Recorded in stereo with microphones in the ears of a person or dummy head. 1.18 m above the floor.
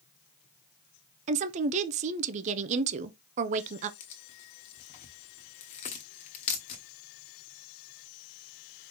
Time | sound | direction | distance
1.3 | a woman speaking | 40° right (ahead or behind) | 0.6 m
4.0 | tearing paper | 40° left (ahead or behind) | 1.1 m